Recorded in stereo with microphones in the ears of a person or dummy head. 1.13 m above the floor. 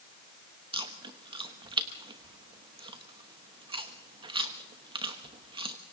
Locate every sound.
0.7 s chewing: 30° right (ahead or behind), 1.1 m